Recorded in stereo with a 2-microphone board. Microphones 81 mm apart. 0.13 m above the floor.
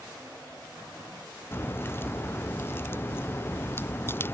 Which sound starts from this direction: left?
A crack, at 1.5 s.